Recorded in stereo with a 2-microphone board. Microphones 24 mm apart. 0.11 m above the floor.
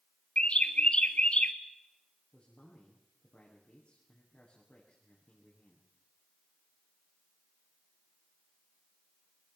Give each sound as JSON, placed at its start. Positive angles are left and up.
{"t": 0.4, "sound": "a bird", "side_deg": 50, "distance_m": 1.3}
{"t": 2.3, "sound": "a man speaking", "side_deg": 45, "distance_m": 7.5}